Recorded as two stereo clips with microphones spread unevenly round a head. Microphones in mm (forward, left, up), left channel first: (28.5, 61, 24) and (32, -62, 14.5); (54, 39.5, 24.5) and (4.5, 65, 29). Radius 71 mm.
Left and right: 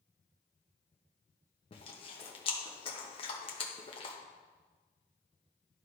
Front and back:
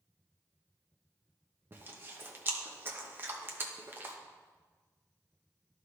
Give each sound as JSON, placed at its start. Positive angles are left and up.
{"t": 1.7, "sound": "chewing", "azimuth_deg": 115, "distance_m": 1.2}